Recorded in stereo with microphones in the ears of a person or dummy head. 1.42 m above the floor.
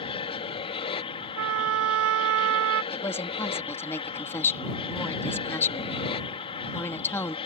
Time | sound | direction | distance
0.0 | an aircraft | 25° left (ahead or behind) | ?
1.4 | a trumpet | 70° right (ahead or behind) | ?
2.9 | a woman speaking | 15° left (ahead or behind) | ?